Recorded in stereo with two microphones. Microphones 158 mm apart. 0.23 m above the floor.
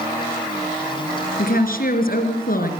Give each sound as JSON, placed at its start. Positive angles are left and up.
{"t": 1.4, "sound": "a woman speaking", "side_deg": 65, "distance_m": 3.5}